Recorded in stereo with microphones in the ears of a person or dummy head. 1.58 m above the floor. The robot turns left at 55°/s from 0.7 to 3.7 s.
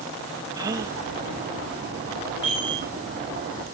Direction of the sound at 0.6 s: 15° right (ahead or behind).